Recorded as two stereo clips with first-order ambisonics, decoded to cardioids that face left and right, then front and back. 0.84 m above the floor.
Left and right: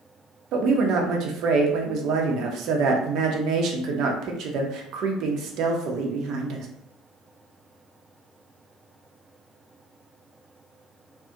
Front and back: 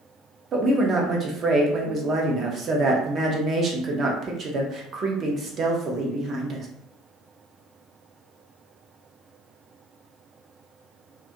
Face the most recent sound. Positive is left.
turn(degrees=-125)